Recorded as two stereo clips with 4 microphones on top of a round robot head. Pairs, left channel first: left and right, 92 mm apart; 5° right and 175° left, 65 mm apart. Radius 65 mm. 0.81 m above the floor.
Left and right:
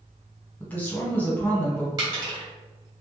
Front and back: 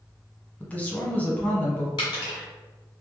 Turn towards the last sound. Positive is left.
turn(degrees=-35)